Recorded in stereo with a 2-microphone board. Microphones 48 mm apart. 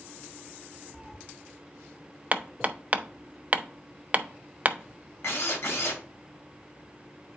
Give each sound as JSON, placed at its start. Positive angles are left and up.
{"t": 0.9, "sound": "a cat meowing", "side_deg": 0, "distance_m": 0.9}
{"t": 2.3, "sound": "hammering", "side_deg": -30, "distance_m": 0.6}
{"t": 5.2, "sound": "a drill", "side_deg": 65, "distance_m": 2.5}